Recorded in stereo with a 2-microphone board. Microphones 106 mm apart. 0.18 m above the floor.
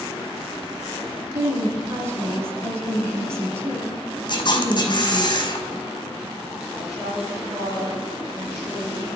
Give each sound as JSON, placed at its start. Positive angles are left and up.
{"t": 1.3, "sound": "a woman speaking", "side_deg": -25, "distance_m": 2.0}
{"t": 4.3, "sound": "a camera shutter", "side_deg": 45, "distance_m": 1.5}
{"t": 6.7, "sound": "a woman speaking", "side_deg": 0, "distance_m": 3.5}